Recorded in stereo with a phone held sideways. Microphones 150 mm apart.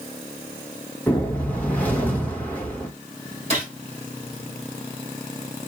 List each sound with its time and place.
1.1 s a whoosh: 10° left (ahead or behind), 1.2 m
3.5 s a gunshot: 50° right (ahead or behind), 2.5 m